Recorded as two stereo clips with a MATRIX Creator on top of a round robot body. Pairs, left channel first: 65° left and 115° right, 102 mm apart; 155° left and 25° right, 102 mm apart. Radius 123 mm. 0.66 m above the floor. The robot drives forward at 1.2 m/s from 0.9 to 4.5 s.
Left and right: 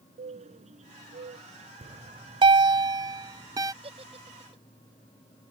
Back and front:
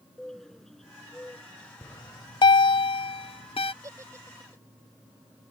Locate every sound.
0.2 s a bird: 115° right; by 1.7 s 125° right
1.8 s a bell: 130° right; by 3.7 s 170° right
3.8 s a giggle: 85° right; by 4.6 s 90° right